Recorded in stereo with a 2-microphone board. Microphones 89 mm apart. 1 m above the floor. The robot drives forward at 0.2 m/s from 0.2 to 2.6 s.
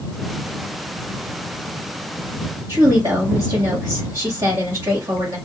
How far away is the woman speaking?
About 1.3 m.